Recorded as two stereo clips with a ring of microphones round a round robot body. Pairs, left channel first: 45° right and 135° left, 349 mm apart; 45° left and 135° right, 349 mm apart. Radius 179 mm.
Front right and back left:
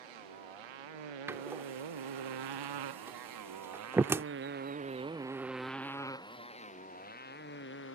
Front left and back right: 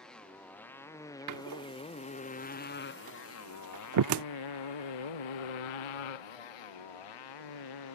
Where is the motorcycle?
135° left; by 7.9 s 15° left.